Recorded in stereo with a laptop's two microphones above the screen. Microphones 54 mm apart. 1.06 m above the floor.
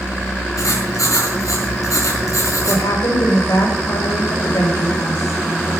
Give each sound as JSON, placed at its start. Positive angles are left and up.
{"t": 0.6, "sound": "writing", "side_deg": 85, "distance_m": 4.5}
{"t": 2.7, "sound": "a woman speaking", "side_deg": 80, "distance_m": 4.5}